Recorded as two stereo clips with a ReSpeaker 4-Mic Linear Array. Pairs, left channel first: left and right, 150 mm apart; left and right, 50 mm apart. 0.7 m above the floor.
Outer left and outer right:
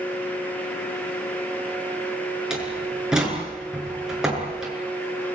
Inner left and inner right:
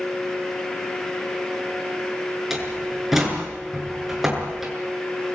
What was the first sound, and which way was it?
A door slam, 5° right (ahead or behind).